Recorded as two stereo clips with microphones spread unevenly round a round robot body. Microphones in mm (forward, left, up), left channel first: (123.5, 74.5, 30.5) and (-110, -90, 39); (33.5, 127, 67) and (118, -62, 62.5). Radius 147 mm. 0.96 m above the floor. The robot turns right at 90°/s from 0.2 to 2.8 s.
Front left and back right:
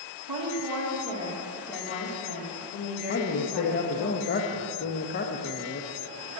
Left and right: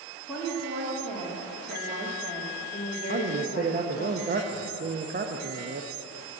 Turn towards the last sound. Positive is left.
turn(degrees=-20)